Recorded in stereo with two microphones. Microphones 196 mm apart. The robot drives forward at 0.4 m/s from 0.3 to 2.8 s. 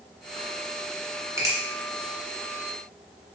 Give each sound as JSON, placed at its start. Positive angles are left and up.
{"t": 1.4, "sound": "a finger snap", "side_deg": -15, "distance_m": 1.1}